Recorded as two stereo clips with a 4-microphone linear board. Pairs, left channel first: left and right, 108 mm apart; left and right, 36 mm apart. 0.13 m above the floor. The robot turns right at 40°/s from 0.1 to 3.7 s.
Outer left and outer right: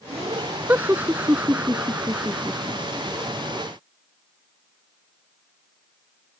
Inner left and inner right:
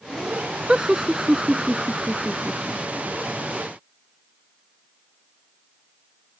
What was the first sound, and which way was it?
Laughter, 20° right (ahead or behind).